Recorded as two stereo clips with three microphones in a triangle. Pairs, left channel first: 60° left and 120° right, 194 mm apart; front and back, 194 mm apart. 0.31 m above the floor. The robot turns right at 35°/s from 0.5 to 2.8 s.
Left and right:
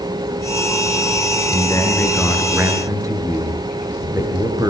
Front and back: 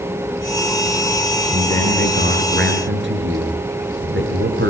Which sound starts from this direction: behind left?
A man speaking, at 1.5 s.